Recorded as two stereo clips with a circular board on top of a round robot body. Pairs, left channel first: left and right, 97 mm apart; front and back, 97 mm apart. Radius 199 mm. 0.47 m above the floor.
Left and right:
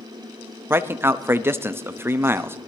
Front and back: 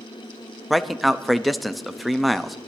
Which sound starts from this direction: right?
A man speaking, at 0.7 s.